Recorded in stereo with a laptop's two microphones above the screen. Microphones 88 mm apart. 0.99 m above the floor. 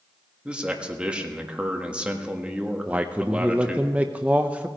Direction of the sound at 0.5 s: 15° right (ahead or behind).